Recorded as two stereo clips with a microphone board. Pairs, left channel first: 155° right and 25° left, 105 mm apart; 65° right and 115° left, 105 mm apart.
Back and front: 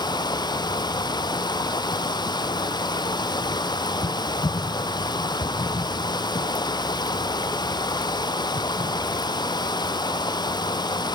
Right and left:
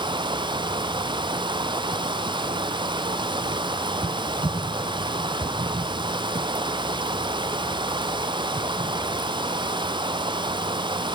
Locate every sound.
0.0 s running water: 155° left, 1.1 m